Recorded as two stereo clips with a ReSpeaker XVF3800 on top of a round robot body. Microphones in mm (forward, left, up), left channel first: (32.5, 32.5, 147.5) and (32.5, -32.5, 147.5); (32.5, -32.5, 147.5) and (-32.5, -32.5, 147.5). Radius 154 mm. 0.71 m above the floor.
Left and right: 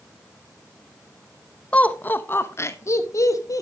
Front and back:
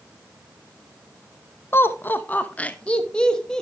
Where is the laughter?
30° left, 1.2 m; by 3.6 s 80° left, 1.7 m.